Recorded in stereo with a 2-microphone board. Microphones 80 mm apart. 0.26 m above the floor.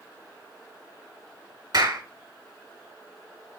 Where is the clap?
60° right (ahead or behind), 2 m.